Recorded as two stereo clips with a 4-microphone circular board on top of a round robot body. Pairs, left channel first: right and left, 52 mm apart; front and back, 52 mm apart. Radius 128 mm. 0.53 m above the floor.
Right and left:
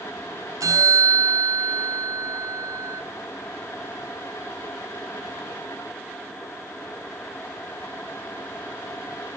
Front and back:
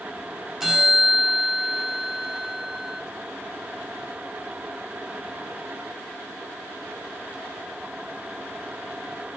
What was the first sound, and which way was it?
A bell, 100° left.